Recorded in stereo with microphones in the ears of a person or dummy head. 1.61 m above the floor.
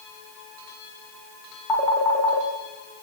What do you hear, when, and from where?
1.7 s a phone ringing: 20° left (ahead or behind), 1.3 m